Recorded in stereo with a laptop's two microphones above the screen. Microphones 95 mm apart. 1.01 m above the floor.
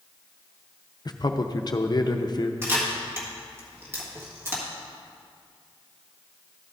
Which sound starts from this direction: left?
A man speaking, at 1.1 s.